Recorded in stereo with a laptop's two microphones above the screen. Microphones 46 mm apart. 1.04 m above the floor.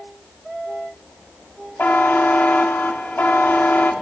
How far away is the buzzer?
About 1.0 m.